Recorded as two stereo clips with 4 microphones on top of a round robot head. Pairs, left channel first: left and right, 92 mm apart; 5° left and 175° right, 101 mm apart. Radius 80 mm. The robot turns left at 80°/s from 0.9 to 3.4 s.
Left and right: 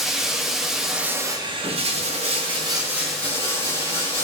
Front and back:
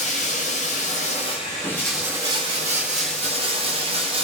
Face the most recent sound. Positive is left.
turn(degrees=155)